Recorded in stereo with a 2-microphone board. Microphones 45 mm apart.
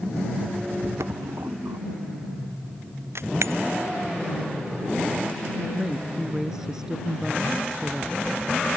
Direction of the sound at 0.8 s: 85° right.